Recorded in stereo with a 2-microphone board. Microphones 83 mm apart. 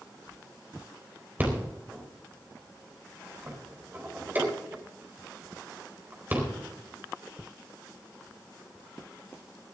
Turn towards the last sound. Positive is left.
turn(degrees=-25)  # may be behind; listen again after turning